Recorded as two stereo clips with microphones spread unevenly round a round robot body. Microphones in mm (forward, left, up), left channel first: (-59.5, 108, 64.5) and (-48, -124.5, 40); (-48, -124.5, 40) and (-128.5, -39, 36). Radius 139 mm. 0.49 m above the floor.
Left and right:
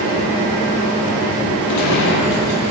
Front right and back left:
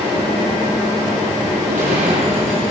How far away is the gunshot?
About 7 m.